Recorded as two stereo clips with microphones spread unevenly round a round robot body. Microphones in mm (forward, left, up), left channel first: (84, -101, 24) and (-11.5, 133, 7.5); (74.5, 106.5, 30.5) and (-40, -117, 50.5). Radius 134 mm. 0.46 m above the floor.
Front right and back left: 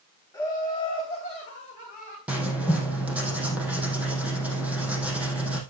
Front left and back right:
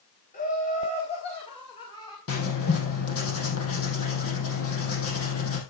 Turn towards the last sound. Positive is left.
turn(degrees=30)